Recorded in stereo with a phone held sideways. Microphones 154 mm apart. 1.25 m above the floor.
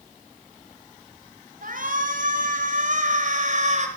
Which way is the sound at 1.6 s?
60° right (ahead or behind).